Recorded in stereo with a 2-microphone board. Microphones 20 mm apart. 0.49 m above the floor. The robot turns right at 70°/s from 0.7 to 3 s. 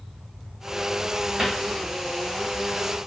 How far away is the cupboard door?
About 1.0 m.